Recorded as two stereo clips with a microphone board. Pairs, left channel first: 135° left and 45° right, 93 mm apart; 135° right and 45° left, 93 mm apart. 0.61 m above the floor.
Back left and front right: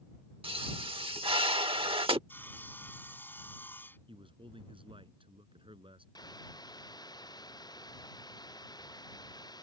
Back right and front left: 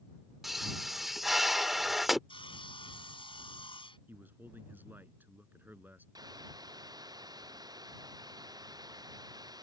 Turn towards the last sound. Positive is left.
turn(degrees=90)